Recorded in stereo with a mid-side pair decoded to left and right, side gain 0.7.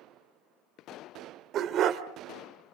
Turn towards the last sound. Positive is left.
turn(degrees=-50)